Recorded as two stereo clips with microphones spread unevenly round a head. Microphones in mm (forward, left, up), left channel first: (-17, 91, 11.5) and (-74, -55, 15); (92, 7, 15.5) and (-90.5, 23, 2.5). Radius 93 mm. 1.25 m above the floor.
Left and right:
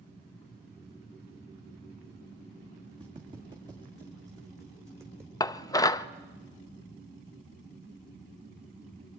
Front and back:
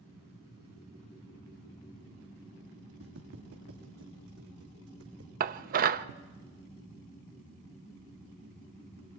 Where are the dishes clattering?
135° left, 0.7 m.